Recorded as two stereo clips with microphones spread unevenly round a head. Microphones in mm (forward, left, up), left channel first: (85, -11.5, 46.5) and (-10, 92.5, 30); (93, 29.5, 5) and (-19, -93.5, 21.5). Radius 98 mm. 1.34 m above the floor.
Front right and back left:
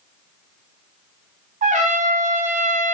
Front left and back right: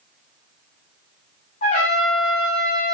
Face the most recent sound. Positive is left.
turn(degrees=105)